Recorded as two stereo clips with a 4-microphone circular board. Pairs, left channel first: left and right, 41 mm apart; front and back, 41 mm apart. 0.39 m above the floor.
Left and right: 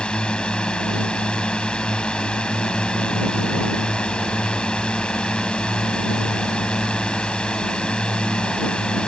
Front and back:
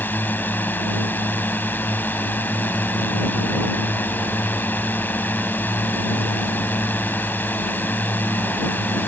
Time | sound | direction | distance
0.0 | a drone | 30° left | ?